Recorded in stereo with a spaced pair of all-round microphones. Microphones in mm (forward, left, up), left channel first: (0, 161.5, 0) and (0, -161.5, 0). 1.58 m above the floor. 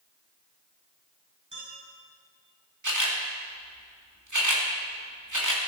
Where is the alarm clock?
No alarm clock in this recording.